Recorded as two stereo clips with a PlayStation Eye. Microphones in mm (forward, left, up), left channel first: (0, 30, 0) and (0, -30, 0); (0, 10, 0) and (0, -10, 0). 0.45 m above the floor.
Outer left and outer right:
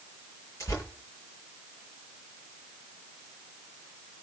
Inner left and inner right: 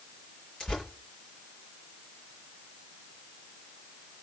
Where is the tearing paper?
55° left (ahead or behind), 8.5 m.